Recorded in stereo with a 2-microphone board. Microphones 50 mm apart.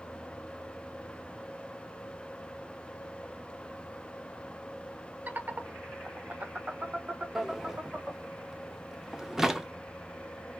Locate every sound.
5.3 s laughter: 35° right (ahead or behind), 0.7 m; by 8.3 s 25° right (ahead or behind), 1.9 m
7.3 s a drawer: 10° right (ahead or behind), 0.6 m